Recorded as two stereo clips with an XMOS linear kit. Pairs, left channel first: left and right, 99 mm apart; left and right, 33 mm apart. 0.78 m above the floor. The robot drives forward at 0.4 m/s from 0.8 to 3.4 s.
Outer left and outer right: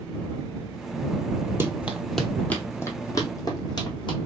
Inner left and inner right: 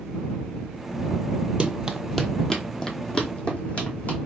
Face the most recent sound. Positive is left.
turn(degrees=50)  # may be behind; listen again after turning